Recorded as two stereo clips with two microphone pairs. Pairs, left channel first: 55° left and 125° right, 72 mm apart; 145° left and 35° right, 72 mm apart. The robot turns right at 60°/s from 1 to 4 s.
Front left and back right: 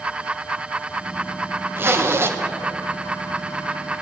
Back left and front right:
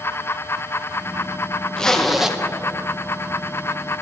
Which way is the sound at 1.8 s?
150° right.